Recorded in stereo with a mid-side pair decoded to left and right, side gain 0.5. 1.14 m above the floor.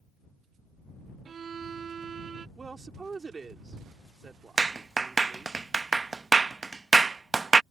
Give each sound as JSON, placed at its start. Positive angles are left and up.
{"t": 1.2, "sound": "a violin", "azimuth_deg": -45}
{"t": 2.6, "sound": "a woman speaking", "azimuth_deg": -30}
{"t": 4.6, "sound": "a clap", "azimuth_deg": -25}